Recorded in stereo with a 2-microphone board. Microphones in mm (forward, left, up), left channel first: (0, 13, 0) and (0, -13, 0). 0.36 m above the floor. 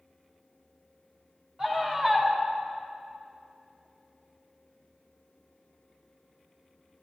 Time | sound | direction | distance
1.6 | a scream | 30° right (ahead or behind) | 3.5 m